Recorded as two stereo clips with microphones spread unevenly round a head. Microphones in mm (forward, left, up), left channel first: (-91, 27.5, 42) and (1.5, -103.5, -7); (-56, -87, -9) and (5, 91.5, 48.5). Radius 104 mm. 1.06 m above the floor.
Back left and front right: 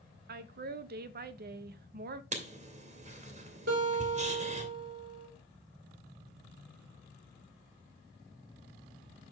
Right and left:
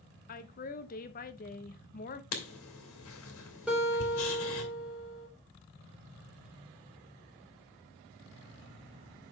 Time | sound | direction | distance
0.3 | a woman speaking | 65° right | 0.8 m
2.3 | writing | 100° right | 2 m
3.7 | a guitar | 15° right | 4 m